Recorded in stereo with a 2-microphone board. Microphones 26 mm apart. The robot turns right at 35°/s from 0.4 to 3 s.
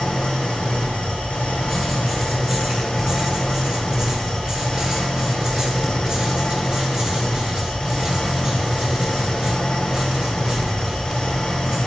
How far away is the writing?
About 1.5 m.